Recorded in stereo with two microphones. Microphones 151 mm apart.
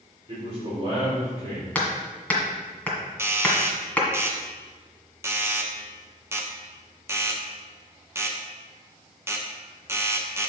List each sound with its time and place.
0.3 s a man speaking: 45° right (ahead or behind), 3.5 m
1.8 s hammering: 10° left (ahead or behind), 1.9 m
3.2 s a doorbell: 15° right (ahead or behind), 0.9 m